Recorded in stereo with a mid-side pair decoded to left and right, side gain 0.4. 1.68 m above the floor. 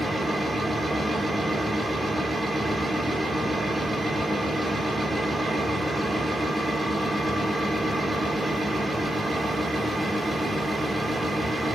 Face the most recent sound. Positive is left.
turn(degrees=-20)